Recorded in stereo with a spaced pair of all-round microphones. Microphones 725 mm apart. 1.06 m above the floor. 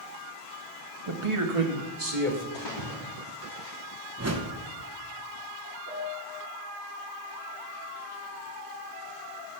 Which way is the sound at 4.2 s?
20° right (ahead or behind).